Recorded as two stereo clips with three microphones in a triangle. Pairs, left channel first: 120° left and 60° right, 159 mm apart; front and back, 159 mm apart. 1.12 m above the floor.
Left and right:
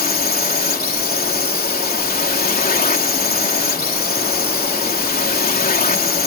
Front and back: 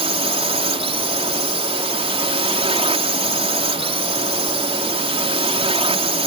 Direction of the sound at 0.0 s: 130° left.